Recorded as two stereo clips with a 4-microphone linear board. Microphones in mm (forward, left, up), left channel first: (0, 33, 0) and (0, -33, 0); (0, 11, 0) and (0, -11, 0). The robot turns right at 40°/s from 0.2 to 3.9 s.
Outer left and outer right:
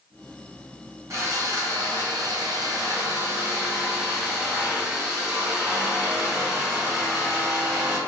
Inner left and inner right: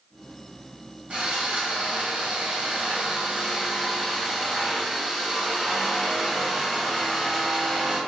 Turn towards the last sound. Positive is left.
turn(degrees=-25)